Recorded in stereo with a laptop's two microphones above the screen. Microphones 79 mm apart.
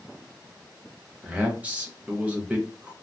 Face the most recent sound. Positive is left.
turn(degrees=-15)  # may be behind; listen again after turning